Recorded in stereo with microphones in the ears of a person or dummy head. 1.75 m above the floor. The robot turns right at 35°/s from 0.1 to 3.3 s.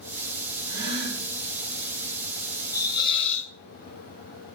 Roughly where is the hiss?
Centre.